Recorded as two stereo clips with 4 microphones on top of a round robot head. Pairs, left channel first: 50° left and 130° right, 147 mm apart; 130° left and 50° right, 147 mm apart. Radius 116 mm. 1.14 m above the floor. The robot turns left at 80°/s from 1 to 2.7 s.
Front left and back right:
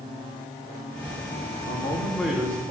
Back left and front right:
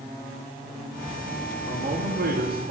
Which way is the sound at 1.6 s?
10° left.